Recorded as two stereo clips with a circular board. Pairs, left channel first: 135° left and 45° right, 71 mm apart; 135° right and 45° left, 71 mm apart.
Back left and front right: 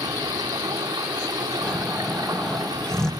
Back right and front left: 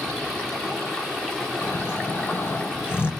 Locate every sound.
0.0 s running water: 55° right, 6 m
1.6 s snoring: 150° right, 1.6 m